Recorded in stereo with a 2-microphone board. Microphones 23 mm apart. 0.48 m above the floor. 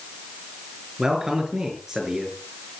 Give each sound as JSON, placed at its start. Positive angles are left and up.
{"t": 1.0, "sound": "a man speaking", "side_deg": -20, "distance_m": 6.5}